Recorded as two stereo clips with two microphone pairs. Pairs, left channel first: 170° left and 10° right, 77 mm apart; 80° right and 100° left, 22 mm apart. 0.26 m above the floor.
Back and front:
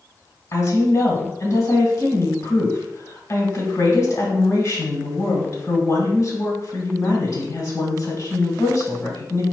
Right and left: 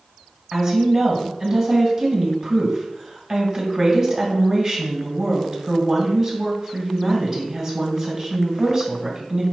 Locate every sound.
0.5 s a woman speaking: 160° left, 1.8 m